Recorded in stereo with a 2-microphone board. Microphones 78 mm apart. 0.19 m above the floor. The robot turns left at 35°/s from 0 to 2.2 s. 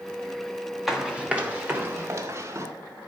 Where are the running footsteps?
5° right (ahead or behind), 2.5 m; by 2.7 s 40° right (ahead or behind), 4 m.